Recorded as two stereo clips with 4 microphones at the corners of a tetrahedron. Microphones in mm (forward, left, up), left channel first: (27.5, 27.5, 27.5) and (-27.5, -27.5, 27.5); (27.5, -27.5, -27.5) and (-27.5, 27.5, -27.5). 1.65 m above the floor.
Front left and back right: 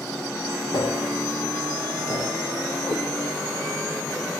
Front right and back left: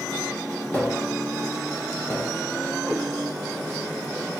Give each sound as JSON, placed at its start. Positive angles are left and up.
{"t": 0.7, "sound": "tapping", "azimuth_deg": 20, "distance_m": 5.0}
{"t": 2.9, "sound": "a cat meowing", "azimuth_deg": 25, "distance_m": 6.0}